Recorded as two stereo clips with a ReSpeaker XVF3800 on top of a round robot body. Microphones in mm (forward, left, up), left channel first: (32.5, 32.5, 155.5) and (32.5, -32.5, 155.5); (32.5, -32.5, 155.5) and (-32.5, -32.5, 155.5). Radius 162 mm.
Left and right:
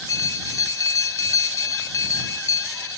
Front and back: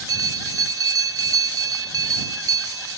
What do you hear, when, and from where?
0.1 s a bell: 140° left